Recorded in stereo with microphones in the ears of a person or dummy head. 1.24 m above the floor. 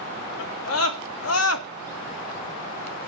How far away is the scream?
About 3 m.